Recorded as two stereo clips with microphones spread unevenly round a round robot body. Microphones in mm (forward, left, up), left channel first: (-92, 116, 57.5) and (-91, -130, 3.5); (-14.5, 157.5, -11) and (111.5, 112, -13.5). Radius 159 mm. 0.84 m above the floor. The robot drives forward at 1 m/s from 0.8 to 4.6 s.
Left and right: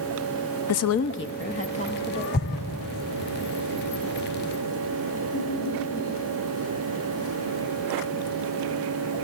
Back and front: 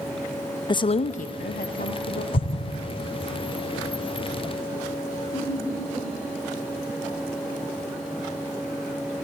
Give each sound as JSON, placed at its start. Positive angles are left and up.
{"t": 0.7, "sound": "a woman speaking", "azimuth_deg": 110, "distance_m": 0.6}
{"t": 2.3, "sound": "an explosion", "azimuth_deg": 140, "distance_m": 1.0}
{"t": 5.3, "sound": "laughter", "azimuth_deg": 95, "distance_m": 9.5}